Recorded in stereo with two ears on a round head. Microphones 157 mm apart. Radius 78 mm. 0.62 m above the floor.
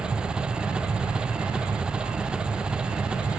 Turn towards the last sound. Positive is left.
turn(degrees=-5)  # may be behind; listen again after turning